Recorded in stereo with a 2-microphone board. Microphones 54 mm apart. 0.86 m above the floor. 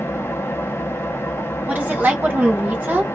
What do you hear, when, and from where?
0.0 s an engine running: 50° left (ahead or behind), 0.9 m
1.7 s a woman speaking: 30° right (ahead or behind), 1.8 m